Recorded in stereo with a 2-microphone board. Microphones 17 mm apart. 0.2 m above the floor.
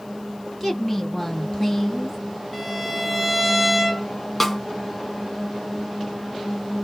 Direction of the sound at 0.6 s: 15° left (ahead or behind).